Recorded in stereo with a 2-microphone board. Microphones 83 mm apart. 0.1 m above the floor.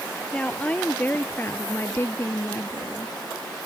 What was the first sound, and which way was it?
A woman speaking, 15° left (ahead or behind).